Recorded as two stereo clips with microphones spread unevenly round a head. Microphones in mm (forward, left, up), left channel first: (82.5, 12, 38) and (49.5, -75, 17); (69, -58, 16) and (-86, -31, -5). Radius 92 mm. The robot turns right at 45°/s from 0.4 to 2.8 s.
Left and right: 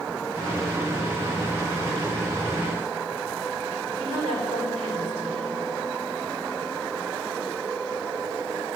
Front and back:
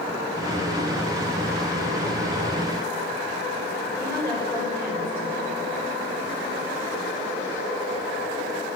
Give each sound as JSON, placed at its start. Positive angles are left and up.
{"t": 4.0, "sound": "a woman speaking", "azimuth_deg": 85, "distance_m": 3.5}